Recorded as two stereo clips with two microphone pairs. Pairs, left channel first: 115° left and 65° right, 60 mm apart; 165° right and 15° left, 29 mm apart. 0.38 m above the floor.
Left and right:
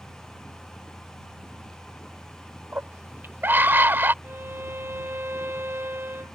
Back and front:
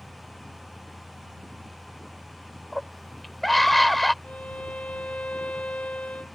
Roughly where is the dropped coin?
I don't hear a dropped coin.